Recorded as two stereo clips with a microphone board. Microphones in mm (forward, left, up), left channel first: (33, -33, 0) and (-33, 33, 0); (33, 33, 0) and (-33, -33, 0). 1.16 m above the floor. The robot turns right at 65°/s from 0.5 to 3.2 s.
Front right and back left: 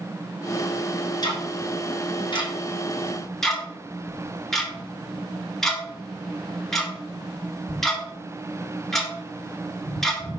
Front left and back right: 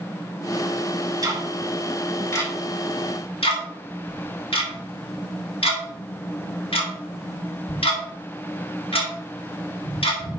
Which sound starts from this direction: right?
Ticking, at 1.2 s.